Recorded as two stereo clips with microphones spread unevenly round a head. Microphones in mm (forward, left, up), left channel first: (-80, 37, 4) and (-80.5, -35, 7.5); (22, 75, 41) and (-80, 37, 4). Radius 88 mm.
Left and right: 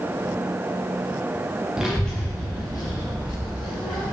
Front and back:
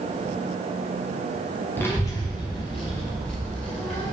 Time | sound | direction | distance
1.8 | a child speaking | 15° right | 0.5 m